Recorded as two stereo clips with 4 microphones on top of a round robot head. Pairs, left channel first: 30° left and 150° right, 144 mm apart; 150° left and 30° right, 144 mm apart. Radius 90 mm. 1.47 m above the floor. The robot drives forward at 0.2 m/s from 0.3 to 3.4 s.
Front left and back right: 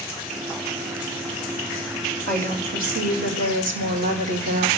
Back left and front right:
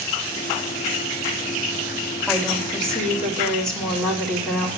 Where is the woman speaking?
125° right, 5.5 m.